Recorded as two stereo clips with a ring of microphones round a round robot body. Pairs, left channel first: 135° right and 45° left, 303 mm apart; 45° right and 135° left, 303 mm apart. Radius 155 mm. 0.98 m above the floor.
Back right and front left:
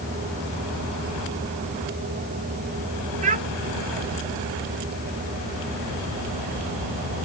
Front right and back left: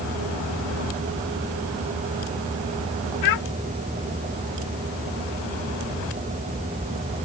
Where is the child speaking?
20° right.